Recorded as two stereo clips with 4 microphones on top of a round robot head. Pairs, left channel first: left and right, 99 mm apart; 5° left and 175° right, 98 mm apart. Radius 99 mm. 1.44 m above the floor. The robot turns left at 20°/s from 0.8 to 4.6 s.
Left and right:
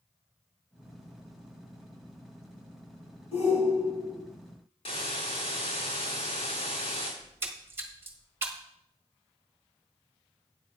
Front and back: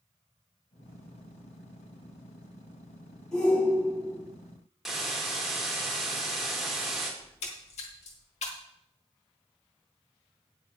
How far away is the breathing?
I don't hear breathing.